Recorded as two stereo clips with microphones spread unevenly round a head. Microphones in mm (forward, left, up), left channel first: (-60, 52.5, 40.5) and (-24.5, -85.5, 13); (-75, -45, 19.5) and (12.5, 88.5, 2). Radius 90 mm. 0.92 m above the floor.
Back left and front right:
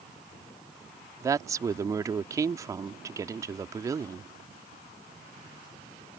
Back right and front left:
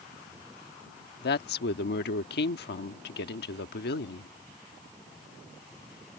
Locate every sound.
1.2 s a woman speaking: 145° right